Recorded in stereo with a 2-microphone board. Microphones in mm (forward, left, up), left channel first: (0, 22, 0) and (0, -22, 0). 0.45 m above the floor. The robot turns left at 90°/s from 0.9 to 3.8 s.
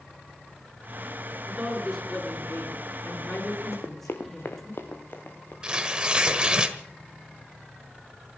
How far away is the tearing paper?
About 1.4 m.